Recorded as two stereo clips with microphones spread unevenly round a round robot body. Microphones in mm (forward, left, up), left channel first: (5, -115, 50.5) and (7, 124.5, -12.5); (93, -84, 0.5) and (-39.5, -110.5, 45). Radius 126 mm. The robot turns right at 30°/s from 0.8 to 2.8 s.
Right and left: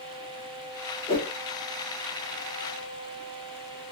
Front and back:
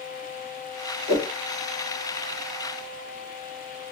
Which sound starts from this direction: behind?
A whoosh, at 1.1 s.